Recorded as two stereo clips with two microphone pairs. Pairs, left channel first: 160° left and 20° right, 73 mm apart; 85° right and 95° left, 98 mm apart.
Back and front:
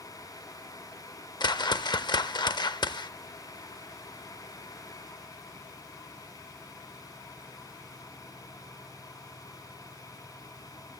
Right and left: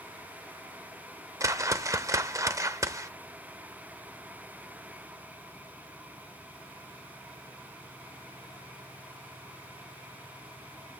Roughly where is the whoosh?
Behind left.